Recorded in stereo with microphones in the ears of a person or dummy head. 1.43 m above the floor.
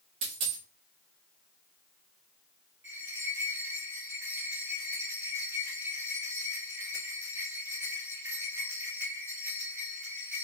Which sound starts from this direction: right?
A dropped coin, at 0.2 s.